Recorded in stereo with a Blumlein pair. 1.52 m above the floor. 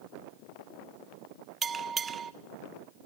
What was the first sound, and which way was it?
A bell, 20° right.